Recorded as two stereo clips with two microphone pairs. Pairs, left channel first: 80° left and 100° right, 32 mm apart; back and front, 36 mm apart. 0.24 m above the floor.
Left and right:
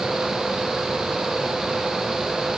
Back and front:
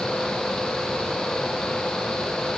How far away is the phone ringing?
No phone ringing in this recording.